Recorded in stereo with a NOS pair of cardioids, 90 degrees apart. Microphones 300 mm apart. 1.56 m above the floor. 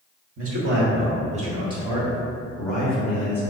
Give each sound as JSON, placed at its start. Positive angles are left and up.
{"t": 0.4, "sound": "a man speaking", "azimuth_deg": -50, "distance_m": 1.4}